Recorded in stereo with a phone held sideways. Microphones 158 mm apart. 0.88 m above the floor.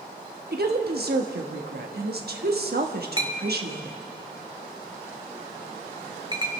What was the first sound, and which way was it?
A woman speaking, 70° right (ahead or behind).